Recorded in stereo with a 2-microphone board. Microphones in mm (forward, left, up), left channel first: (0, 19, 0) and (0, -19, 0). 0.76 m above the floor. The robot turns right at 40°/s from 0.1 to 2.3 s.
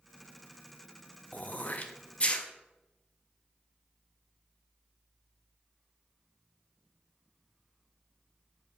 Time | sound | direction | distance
1.3 | throat clearing | 45° left (ahead or behind) | 0.6 m